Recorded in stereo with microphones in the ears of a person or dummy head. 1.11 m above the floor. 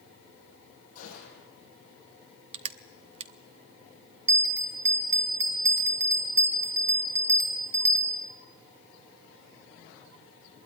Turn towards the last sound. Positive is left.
turn(degrees=-15)  # may be behind; listen again after turning